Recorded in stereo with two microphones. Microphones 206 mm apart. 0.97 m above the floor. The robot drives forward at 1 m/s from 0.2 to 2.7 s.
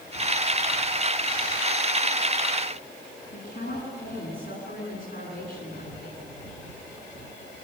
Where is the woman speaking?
60° left (ahead or behind), 9 m.